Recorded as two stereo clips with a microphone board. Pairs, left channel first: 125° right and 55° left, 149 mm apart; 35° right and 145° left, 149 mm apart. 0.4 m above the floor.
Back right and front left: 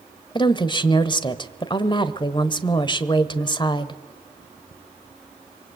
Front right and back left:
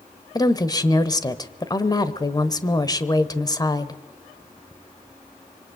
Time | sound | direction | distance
0.3 | a woman speaking | 85° right | 1.3 m